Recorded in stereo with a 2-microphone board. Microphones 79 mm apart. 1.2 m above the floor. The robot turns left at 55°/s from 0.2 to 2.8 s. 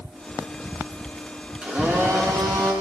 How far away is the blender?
About 8.5 m.